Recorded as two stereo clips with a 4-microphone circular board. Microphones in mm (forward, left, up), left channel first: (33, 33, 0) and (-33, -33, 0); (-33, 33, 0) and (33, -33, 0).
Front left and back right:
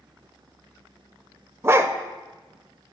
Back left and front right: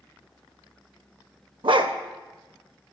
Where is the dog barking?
75° right, 0.5 m.